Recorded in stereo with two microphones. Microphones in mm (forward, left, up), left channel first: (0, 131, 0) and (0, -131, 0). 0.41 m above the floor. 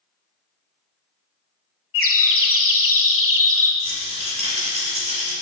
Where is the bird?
55° left (ahead or behind), 0.9 m.